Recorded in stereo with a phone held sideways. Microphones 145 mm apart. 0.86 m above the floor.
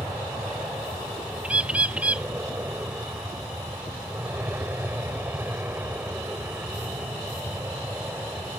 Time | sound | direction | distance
0.0 | an aircraft | 15° right (ahead or behind) | ?
1.4 | a bird | 10° right (ahead or behind) | ?